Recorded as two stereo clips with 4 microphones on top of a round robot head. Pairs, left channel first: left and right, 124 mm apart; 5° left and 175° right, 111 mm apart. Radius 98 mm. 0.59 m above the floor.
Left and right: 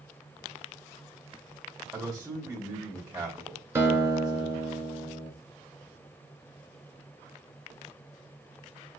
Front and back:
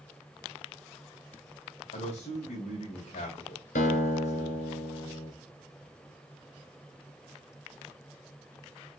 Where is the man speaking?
25° right, 2.5 m.